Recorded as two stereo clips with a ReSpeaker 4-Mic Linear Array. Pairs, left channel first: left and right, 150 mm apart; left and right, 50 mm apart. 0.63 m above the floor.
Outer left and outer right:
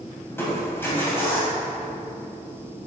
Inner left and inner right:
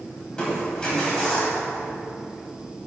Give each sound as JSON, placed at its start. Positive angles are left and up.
{"t": 0.3, "sound": "crushing", "side_deg": 15, "distance_m": 3.0}